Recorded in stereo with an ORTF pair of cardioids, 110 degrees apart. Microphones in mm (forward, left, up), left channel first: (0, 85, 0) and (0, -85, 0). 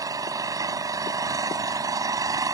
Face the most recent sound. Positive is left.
turn(degrees=-20)